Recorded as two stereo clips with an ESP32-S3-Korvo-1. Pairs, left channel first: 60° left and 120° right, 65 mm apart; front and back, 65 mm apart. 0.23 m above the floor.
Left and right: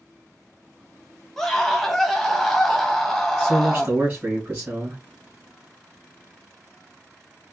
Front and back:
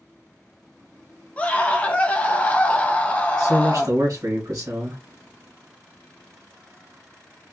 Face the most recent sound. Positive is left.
turn(degrees=-175)